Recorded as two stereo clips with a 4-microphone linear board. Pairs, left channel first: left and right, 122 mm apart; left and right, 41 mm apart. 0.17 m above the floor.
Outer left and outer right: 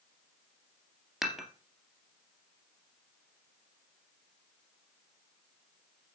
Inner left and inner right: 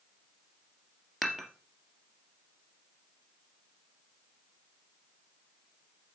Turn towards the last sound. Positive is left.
turn(degrees=0)  # may be behind; listen again after turning